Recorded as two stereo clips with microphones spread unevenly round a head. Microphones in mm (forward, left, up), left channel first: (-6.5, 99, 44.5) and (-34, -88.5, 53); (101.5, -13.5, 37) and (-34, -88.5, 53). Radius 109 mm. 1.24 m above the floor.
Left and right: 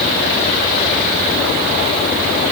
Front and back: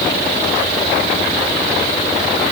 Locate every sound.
Only background noise.